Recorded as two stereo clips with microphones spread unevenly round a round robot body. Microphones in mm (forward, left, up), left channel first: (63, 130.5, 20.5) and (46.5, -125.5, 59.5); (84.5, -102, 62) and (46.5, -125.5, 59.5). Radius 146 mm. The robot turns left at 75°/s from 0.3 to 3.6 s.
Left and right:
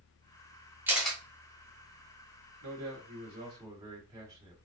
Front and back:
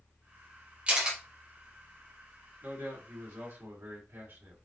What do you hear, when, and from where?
0.9 s a camera shutter: 175° left, 1.3 m; by 1.2 s 150° left, 1.3 m
2.6 s a man speaking: 100° right, 1.8 m; by 4.5 s 175° right, 1.8 m